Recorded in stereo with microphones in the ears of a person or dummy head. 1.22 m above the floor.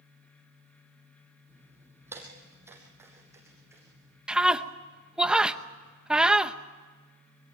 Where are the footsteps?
10° right (ahead or behind), 3 m; by 4.2 s 15° right (ahead or behind), 4 m.